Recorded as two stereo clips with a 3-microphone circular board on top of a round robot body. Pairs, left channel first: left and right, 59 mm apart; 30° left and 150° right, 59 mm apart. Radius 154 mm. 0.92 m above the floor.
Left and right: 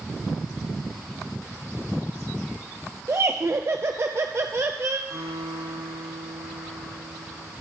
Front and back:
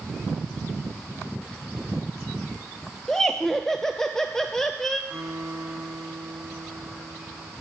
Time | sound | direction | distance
3.1 | laughter | 50° right | 0.6 m
5.1 | a guitar | 80° right | 5.5 m